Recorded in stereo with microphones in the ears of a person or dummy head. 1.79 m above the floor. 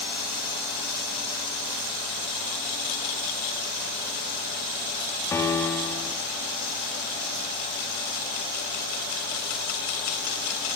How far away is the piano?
About 4.5 m.